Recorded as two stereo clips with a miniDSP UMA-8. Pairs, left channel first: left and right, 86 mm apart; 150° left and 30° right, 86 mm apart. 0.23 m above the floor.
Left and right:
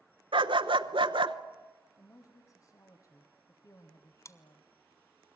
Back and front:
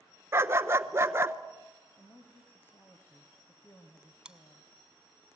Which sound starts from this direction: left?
A woman speaking, at 2.0 s.